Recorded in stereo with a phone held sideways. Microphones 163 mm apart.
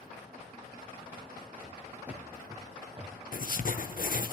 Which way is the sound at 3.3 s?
60° left (ahead or behind).